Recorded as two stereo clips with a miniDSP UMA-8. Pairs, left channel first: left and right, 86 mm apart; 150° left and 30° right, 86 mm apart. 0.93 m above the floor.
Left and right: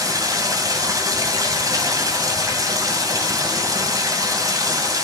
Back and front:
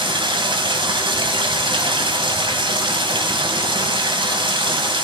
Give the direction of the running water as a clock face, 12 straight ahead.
1 o'clock.